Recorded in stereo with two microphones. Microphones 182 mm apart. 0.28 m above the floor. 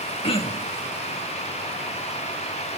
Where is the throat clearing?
30° left (ahead or behind), 0.7 m.